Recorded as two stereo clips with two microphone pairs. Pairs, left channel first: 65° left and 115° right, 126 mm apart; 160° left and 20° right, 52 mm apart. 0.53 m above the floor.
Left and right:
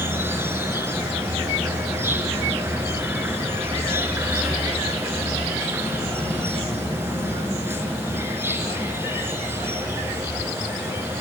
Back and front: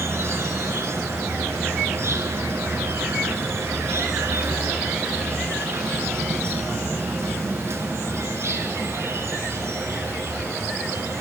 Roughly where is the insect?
Ahead right.